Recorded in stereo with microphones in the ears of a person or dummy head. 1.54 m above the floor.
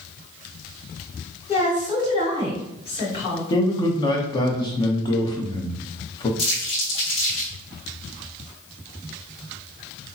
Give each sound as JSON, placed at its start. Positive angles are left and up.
{"t": 1.5, "sound": "a woman speaking", "side_deg": 25, "distance_m": 1.9}
{"t": 3.5, "sound": "a man speaking", "side_deg": 20, "distance_m": 0.8}
{"t": 6.4, "sound": "crumpling", "side_deg": 30, "distance_m": 2.0}